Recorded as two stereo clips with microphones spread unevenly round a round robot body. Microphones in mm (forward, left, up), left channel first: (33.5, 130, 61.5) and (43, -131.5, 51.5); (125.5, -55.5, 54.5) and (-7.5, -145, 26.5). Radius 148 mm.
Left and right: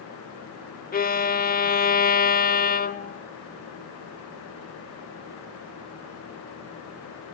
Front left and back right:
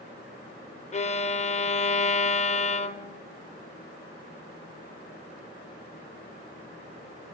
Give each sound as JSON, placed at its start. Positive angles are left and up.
{"t": 0.9, "sound": "a violin", "azimuth_deg": 65, "distance_m": 1.1}